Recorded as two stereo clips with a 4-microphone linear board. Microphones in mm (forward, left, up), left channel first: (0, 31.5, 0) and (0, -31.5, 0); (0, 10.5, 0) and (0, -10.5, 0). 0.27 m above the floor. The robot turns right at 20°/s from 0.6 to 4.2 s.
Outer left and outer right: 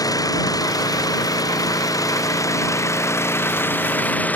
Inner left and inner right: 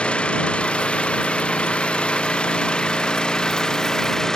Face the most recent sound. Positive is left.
turn(degrees=150)